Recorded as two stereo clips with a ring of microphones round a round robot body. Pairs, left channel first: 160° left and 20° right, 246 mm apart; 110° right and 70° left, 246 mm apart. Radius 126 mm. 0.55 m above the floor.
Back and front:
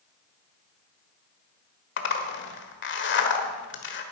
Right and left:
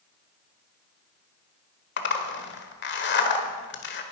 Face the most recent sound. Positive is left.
turn(degrees=-160)